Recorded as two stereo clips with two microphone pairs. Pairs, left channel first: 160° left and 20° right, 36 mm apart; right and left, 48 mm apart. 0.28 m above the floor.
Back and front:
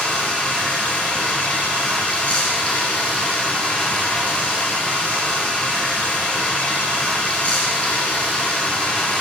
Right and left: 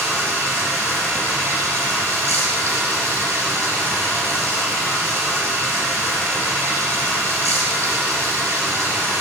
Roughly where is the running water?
Left.